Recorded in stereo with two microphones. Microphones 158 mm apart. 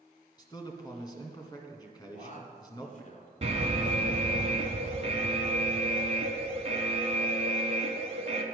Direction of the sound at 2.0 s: 50° left (ahead or behind).